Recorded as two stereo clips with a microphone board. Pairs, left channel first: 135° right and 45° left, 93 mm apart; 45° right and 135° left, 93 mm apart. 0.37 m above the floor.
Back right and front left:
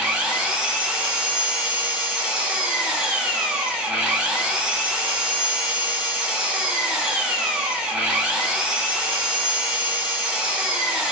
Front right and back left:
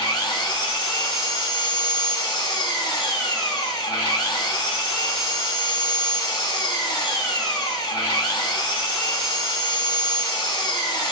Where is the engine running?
25° right, 1.0 m.